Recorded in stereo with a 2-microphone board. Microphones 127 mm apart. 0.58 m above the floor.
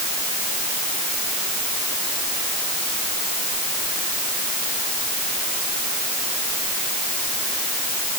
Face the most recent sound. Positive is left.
No sound to turn to.